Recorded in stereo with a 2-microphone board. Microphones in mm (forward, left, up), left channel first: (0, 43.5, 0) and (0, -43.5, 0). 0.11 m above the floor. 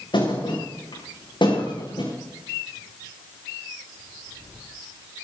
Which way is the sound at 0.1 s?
70° left (ahead or behind).